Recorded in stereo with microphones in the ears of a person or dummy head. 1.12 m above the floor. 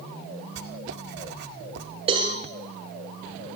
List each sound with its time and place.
0.6 s writing: 65° right (ahead or behind), 1.9 m
2.1 s a cowbell: 35° right (ahead or behind), 7.5 m